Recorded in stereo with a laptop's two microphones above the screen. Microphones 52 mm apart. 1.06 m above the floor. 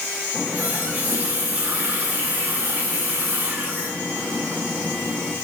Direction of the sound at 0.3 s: 35° right (ahead or behind).